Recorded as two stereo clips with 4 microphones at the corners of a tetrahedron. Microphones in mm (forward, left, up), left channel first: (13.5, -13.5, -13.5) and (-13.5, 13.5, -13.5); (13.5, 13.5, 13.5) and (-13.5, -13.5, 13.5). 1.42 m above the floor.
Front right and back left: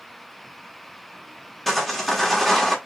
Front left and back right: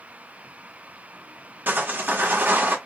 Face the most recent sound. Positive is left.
turn(degrees=-130)